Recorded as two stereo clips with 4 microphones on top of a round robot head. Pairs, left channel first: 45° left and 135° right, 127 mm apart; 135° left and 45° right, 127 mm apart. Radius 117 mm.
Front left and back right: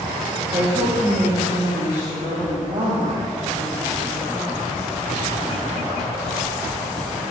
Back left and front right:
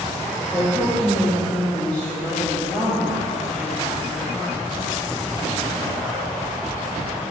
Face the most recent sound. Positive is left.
turn(degrees=-140)